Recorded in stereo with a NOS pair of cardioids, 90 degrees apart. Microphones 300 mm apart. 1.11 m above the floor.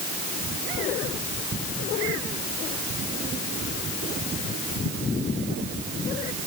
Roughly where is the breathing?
I don't hear breathing.